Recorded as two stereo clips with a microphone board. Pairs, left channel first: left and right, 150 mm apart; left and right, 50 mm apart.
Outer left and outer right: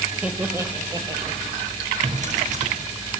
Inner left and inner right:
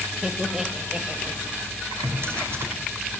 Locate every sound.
0.2 s laughter: 5° right (ahead or behind), 1.4 m; by 1.4 s 35° right (ahead or behind), 1.8 m
2.0 s a drawer: 55° right (ahead or behind), 3 m